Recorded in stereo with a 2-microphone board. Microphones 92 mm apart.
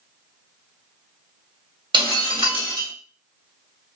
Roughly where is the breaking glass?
Right.